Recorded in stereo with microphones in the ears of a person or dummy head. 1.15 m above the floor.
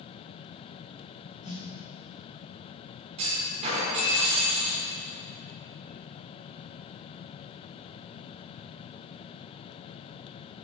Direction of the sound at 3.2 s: 35° right (ahead or behind).